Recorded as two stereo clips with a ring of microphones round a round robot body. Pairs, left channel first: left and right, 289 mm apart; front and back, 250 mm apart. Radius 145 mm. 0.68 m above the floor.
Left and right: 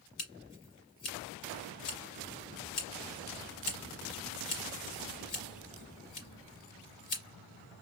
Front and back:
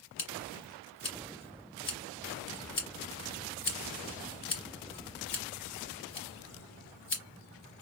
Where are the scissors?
40° left, 2.5 m.